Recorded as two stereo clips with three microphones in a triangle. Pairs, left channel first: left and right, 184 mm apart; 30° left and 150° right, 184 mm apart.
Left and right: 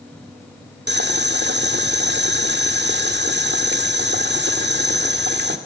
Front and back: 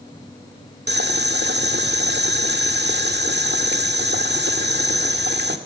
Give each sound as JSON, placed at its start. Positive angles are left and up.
{"t": 0.9, "sound": "boiling", "azimuth_deg": -120, "distance_m": 1.6}